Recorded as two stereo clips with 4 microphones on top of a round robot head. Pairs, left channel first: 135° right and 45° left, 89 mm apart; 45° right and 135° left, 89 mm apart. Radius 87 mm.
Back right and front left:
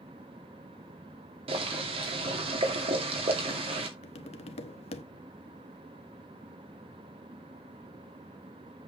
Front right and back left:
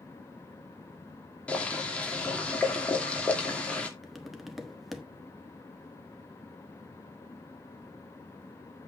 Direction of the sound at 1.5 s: 30° left.